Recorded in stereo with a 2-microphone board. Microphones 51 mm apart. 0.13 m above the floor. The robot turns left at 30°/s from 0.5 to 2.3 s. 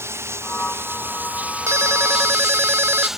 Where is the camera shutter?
No camera shutter in this recording.